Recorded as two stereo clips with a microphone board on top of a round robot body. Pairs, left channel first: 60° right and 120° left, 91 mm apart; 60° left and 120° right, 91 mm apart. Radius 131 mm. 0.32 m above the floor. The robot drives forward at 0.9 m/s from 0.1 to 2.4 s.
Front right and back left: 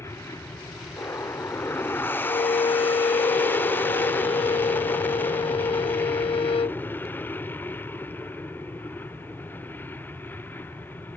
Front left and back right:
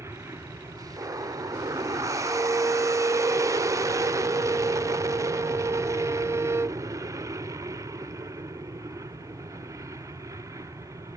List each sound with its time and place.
0.0 s an aircraft: 90° right; by 11.2 s 115° right
2.2 s a violin: 45° right; by 6.8 s 60° right